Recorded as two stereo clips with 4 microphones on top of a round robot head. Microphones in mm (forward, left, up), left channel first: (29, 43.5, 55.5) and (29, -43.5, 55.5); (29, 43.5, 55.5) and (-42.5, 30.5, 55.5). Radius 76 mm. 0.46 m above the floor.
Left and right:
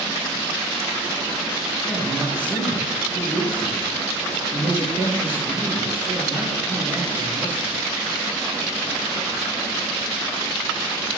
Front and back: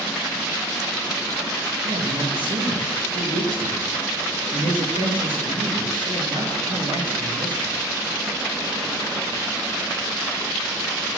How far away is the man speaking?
About 9.5 m.